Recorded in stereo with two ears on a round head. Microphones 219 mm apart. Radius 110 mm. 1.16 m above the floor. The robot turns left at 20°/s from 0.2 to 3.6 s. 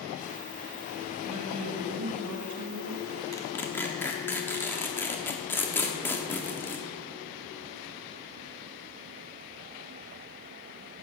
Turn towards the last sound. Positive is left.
turn(degrees=10)  # may be behind; listen again after turning